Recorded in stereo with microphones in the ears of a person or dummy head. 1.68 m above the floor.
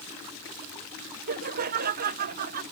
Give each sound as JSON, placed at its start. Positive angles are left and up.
{"t": 1.3, "sound": "laughter", "side_deg": -50}